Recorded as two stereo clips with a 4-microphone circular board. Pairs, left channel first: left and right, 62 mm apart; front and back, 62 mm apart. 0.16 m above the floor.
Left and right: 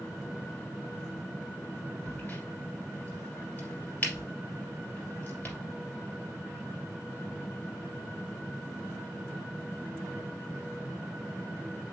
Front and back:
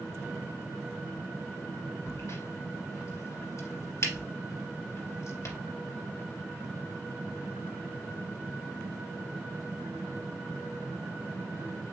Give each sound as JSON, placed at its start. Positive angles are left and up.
{"t": 2.1, "sound": "a crack", "azimuth_deg": 30, "distance_m": 3.0}